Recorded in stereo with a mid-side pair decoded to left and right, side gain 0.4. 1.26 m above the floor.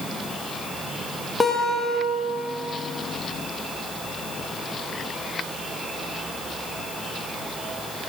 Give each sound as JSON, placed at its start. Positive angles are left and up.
{"t": 1.4, "sound": "a guitar", "azimuth_deg": 25, "distance_m": 1.2}